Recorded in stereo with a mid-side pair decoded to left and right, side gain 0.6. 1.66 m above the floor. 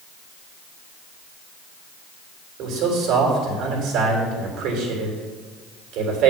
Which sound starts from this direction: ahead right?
A man speaking, at 2.6 s.